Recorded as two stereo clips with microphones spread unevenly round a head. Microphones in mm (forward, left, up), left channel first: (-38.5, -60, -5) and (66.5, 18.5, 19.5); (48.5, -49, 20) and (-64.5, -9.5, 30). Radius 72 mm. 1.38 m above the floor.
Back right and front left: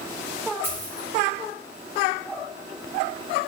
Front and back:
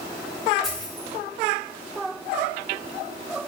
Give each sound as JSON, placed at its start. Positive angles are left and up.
{"t": 0.6, "sound": "a dropped coin", "azimuth_deg": 75, "distance_m": 0.9}